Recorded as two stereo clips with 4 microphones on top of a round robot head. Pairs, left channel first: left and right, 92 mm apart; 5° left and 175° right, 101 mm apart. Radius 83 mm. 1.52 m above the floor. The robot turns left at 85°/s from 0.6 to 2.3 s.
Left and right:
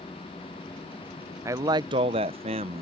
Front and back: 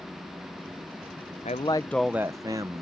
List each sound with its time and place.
1.4 s a man speaking: 35° right; by 2.8 s 110° right